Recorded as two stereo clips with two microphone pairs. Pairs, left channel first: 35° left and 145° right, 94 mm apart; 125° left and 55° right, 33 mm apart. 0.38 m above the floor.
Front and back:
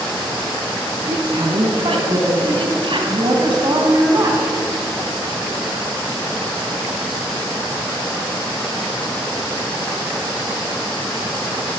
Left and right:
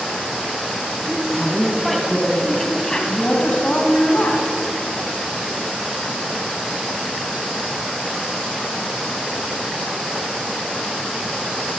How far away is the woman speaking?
About 3.5 m.